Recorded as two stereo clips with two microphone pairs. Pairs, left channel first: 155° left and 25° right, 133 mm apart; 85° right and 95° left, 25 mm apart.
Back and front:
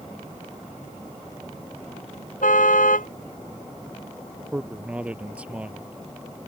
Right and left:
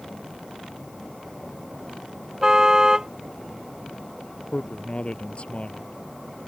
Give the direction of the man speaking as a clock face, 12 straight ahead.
3 o'clock.